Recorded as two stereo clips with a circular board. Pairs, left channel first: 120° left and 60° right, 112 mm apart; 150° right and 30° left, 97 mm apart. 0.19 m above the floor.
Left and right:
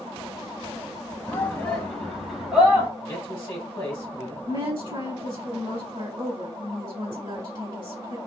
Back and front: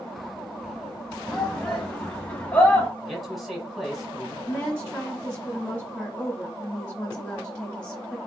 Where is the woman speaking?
80° right, 1.5 m.